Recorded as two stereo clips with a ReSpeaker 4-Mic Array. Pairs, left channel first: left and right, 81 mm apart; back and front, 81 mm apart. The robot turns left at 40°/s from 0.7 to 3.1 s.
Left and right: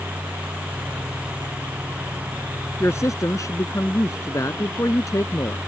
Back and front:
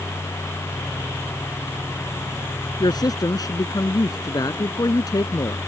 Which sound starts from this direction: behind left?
A woman speaking, at 2.8 s.